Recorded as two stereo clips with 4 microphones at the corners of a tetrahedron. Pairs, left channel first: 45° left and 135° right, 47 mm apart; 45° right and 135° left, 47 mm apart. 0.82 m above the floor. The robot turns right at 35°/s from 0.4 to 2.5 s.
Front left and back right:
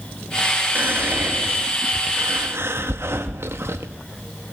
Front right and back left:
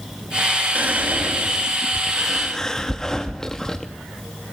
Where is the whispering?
Straight behind, 0.8 m; by 3.9 s 120° right, 0.8 m.